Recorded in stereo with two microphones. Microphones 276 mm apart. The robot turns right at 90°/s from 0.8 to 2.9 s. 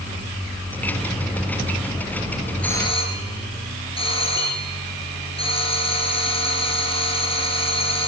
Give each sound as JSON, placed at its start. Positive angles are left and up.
{"t": 2.6, "sound": "a doorbell", "side_deg": 5, "distance_m": 2.5}